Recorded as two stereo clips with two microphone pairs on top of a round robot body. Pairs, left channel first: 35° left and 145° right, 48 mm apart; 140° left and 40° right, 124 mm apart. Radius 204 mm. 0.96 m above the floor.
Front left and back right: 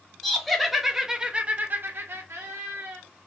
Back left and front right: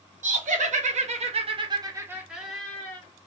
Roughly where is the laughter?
Ahead right.